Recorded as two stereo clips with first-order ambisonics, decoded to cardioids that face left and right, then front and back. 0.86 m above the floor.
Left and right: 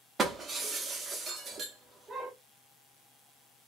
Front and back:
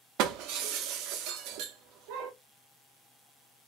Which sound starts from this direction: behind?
Breaking glass, at 0.2 s.